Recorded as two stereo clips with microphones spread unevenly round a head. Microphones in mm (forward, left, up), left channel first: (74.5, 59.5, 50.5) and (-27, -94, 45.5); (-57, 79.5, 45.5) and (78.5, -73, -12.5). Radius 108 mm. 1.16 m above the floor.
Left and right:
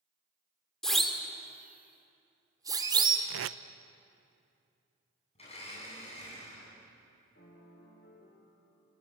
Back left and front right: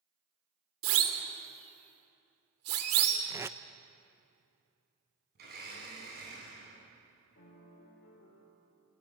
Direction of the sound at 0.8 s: 30° right.